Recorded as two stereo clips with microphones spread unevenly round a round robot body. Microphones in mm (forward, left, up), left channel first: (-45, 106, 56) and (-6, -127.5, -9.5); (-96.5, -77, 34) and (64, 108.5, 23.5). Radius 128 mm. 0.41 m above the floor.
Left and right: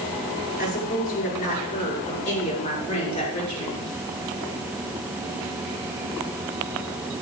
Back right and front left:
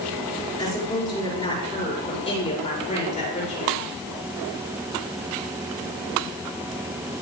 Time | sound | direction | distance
0.6 | a woman speaking | 160° left | 6 m